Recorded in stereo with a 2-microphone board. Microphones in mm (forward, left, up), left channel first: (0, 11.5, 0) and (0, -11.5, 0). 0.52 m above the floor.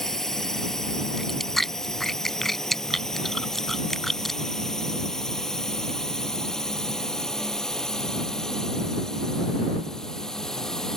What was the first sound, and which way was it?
A drone, 20° left (ahead or behind).